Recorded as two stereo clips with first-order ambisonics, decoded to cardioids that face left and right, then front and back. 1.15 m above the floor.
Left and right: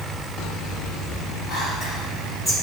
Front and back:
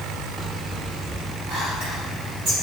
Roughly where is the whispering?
Behind.